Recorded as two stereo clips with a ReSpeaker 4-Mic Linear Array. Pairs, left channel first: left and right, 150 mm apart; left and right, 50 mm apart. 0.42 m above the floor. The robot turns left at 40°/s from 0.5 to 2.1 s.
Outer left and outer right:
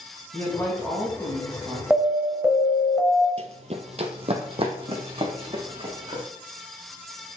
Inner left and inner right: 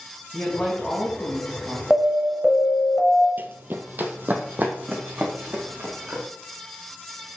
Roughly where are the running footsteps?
Right.